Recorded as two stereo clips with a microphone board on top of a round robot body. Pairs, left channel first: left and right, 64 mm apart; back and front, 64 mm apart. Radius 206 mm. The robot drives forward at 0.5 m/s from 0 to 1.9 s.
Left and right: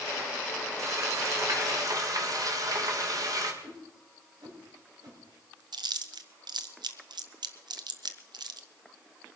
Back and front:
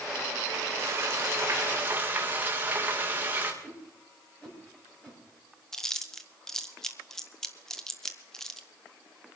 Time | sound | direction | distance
0.8 | frying | 50° right | 2.5 m
3.6 | a whoosh | 110° right | 5 m
5.7 | chewing | 100° right | 0.7 m